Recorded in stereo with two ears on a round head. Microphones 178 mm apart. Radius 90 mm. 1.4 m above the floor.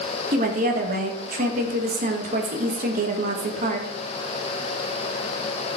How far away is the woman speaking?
About 1.9 m.